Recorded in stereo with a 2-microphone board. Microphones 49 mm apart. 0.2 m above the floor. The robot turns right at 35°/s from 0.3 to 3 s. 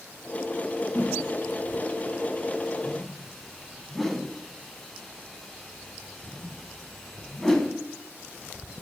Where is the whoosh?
45° left (ahead or behind), 0.9 m; by 7.7 s 5° left (ahead or behind), 0.9 m.